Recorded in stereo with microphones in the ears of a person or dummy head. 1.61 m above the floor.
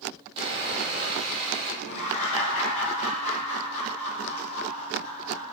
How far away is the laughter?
About 0.8 m.